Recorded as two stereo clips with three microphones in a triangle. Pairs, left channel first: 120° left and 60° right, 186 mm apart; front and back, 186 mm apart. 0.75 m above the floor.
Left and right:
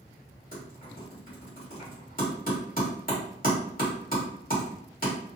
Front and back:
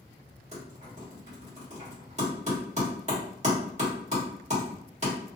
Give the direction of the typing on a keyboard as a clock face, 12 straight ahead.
7 o'clock.